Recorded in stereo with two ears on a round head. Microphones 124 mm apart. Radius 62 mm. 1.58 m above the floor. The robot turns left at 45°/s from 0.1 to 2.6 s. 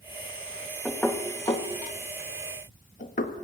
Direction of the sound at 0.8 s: Centre (ahead or behind).